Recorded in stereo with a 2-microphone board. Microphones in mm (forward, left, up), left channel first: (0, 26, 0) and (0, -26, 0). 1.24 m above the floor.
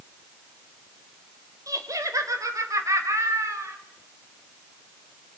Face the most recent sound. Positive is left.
turn(degrees=-60)  # may be behind; listen again after turning